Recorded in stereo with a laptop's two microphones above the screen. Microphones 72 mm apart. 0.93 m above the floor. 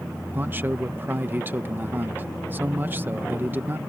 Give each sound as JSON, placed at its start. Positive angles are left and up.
{"t": 0.3, "sound": "a man speaking", "side_deg": -25}